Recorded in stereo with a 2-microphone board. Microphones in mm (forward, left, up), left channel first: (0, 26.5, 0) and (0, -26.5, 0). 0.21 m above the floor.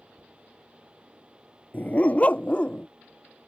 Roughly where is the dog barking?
Left.